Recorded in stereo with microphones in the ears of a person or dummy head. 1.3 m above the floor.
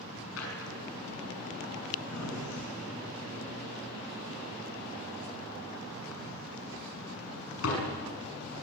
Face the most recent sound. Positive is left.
turn(degrees=85)